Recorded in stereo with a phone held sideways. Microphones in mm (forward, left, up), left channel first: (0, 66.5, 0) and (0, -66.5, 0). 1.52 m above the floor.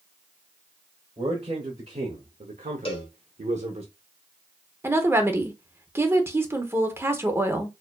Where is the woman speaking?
20° right (ahead or behind), 0.7 m.